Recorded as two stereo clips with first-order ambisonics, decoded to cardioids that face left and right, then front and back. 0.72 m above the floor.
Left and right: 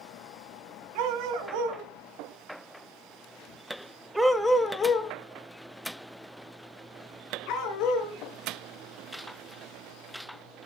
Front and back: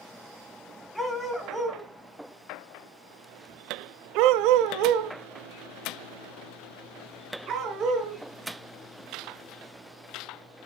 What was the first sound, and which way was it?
A dog barking, 85° right.